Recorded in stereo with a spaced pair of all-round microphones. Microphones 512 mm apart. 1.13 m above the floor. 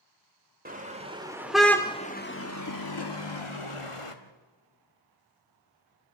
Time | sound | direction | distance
0.7 | a car horn | 15° right (ahead or behind) | 2.5 m